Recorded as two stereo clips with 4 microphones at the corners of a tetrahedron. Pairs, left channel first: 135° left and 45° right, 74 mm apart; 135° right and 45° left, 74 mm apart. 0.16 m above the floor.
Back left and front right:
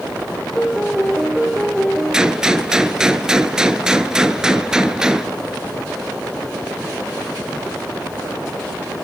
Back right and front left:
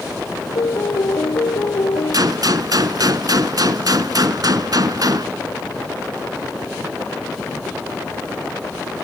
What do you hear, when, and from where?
0.6 s a piano: 140° right, 2.5 m
2.1 s a gunshot: 30° left, 1.2 m